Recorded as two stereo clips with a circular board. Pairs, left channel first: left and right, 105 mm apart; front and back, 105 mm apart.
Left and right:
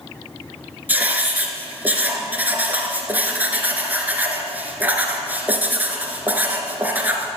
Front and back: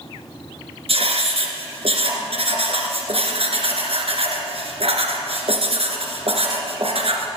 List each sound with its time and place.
0.9 s writing: 165° right, 2.5 m